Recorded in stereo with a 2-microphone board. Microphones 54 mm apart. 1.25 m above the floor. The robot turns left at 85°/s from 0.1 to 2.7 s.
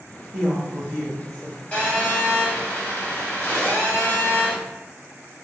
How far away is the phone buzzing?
About 1.4 m.